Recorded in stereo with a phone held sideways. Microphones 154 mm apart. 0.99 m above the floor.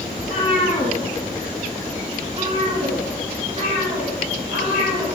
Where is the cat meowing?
40° left (ahead or behind), 2 m; by 5.1 s 45° right (ahead or behind), 4.5 m.